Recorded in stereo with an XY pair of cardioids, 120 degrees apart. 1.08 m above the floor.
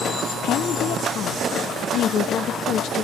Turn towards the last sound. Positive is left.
turn(degrees=65)